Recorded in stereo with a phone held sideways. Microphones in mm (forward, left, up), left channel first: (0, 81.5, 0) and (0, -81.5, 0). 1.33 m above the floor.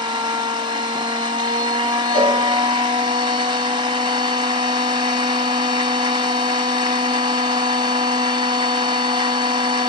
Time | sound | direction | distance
0.0 | a machine running | 30° right (ahead or behind) | 1.0 m
2.1 | a cowbell | 50° left (ahead or behind) | 6.5 m